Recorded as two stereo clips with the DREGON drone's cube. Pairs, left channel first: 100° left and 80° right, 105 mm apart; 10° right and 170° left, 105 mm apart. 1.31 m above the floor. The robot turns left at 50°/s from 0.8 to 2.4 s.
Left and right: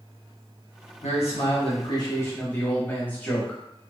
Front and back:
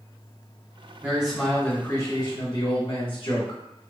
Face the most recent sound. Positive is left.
turn(degrees=25)